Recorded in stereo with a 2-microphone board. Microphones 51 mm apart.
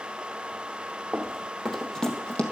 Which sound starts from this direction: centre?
Running footsteps, at 1.1 s.